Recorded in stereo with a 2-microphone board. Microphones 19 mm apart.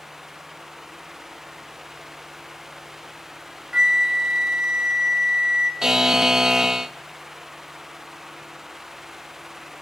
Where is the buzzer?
25° right (ahead or behind), 0.6 m.